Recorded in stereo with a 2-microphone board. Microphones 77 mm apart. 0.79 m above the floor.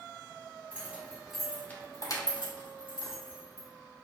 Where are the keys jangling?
20° right (ahead or behind), 1.4 m; by 3.7 s 70° left (ahead or behind), 1.8 m.